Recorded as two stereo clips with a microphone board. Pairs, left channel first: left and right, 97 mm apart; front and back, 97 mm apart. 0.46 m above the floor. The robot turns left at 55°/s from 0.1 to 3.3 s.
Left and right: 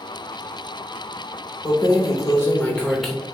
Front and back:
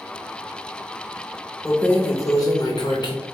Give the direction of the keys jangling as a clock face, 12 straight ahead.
9 o'clock.